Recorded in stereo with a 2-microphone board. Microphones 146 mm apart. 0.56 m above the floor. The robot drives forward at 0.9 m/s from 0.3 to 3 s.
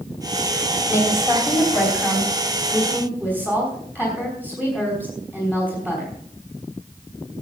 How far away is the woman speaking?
About 2.5 m.